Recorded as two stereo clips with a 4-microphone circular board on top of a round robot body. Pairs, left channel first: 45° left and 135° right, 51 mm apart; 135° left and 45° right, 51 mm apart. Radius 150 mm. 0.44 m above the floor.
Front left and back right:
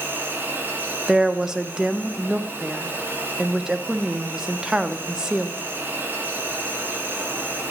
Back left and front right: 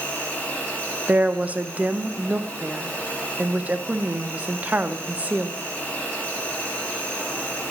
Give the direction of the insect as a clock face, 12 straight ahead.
6 o'clock.